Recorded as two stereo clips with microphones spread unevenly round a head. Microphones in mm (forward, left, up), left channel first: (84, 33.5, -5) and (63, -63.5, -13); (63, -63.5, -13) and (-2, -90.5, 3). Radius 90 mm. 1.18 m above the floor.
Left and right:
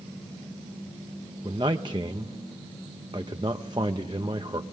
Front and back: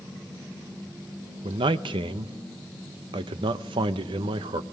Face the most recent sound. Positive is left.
turn(degrees=-170)